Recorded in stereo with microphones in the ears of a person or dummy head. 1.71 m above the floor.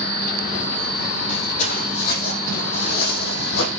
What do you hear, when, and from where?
1.3 s footsteps: 40° left (ahead or behind), 4 m; by 3.7 s 60° left (ahead or behind), 4 m